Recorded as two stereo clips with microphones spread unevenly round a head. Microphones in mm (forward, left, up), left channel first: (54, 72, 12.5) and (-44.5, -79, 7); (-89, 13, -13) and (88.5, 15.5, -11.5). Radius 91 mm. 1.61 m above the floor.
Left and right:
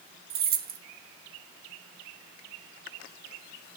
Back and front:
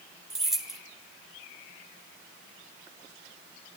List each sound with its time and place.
0.3 s keys jangling: 85° right, 1.2 m